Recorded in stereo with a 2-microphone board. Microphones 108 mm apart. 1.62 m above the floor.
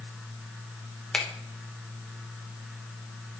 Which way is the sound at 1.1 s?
10° left (ahead or behind).